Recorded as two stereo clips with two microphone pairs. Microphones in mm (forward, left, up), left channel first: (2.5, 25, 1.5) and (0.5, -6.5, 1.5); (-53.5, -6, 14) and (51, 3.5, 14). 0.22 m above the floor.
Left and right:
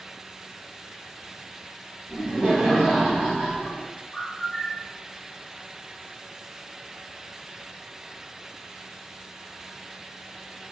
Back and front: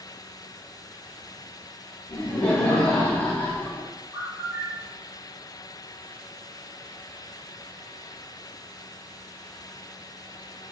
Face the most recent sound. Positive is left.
turn(degrees=40)